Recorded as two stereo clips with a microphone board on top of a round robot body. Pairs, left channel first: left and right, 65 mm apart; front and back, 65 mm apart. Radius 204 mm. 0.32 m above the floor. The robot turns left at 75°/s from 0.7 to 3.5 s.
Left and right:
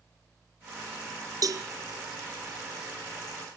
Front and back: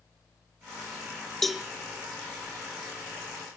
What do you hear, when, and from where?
1.4 s a cowbell: 85° right, 1.5 m; by 1.6 s 105° right, 1.5 m